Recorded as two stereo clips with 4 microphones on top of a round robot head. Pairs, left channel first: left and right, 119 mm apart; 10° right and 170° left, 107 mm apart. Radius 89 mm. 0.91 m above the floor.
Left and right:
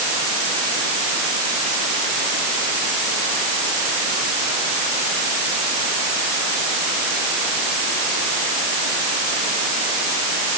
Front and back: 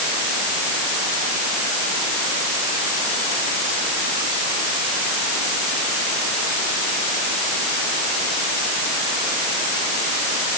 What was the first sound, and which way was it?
Only background noise.